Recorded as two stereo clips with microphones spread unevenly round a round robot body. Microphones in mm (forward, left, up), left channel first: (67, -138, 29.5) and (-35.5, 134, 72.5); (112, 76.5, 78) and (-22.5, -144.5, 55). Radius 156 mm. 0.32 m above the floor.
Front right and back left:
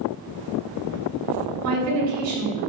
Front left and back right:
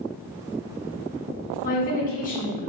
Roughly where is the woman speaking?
Left.